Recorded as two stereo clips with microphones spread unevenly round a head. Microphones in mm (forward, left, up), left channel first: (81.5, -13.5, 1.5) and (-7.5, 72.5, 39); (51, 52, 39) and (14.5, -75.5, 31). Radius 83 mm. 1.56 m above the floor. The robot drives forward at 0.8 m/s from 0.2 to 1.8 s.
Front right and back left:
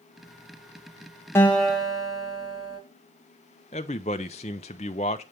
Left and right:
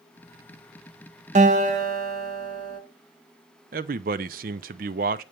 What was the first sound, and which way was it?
A guitar, 135° right.